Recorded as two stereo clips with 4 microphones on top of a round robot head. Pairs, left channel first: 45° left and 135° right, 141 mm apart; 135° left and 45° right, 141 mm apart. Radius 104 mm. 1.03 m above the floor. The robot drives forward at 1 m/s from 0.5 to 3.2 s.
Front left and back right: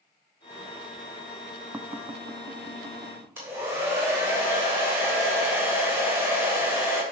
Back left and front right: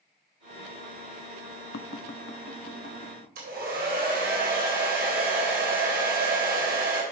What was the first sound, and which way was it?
Tapping, 145° left.